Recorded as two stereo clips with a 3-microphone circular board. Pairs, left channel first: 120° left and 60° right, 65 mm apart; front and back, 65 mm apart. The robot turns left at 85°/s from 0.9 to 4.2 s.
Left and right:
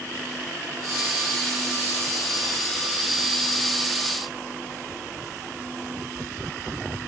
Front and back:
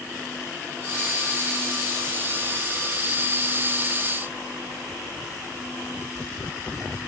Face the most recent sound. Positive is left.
No sound to turn to.